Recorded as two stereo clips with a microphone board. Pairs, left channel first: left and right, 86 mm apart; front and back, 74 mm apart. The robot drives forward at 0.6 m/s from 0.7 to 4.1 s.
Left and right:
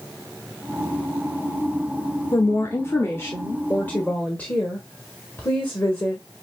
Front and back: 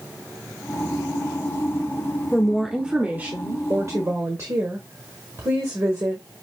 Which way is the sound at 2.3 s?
75° left.